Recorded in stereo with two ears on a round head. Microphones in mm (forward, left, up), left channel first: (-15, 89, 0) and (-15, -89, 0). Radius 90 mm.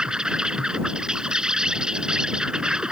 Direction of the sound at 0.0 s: 5° right (ahead or behind).